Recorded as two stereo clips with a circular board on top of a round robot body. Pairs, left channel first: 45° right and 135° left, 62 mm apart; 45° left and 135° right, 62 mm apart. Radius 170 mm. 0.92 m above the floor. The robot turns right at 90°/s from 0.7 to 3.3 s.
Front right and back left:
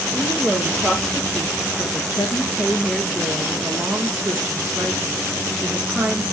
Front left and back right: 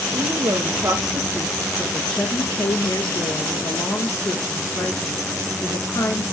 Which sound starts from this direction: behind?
A woman speaking, at 0.1 s.